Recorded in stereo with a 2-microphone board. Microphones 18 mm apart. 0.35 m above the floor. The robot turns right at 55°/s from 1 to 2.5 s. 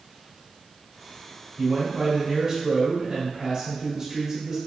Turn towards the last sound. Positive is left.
turn(degrees=-60)